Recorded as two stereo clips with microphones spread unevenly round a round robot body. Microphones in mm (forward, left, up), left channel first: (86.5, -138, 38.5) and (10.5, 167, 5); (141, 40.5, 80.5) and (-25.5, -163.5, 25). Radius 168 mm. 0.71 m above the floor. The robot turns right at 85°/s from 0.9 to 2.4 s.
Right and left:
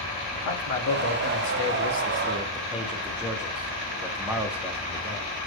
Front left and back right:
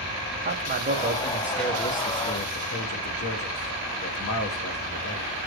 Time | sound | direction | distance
0.3 | a man speaking | 105° right | 1.5 m